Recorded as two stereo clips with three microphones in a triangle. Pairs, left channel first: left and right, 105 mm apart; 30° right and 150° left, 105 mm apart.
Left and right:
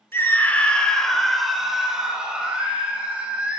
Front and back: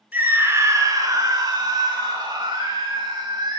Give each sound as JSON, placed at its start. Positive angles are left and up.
{"t": 0.1, "sound": "a scream", "azimuth_deg": 110, "distance_m": 0.7}